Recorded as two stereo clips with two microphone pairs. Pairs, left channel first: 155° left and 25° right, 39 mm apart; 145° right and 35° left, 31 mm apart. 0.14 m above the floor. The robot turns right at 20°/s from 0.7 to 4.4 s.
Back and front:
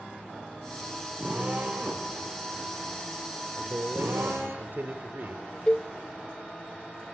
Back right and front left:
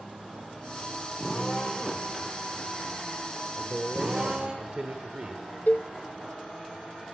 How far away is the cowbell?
About 0.6 m.